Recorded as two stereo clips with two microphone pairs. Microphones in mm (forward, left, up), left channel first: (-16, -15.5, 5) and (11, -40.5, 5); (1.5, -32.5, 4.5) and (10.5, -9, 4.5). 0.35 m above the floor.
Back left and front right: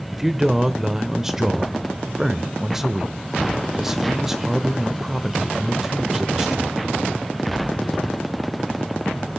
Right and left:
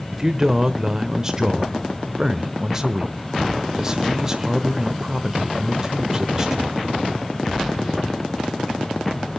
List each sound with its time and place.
0.1 s a man speaking: 20° left, 1.0 m